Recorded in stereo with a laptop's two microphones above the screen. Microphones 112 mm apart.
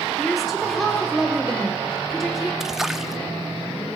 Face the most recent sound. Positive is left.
turn(degrees=-5)  # may be behind; listen again after turning